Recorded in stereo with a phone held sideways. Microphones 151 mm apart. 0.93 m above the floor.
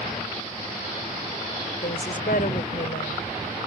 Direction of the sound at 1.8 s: 80° left.